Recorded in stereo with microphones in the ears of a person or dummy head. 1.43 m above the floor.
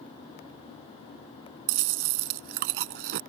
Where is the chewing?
55° right (ahead or behind).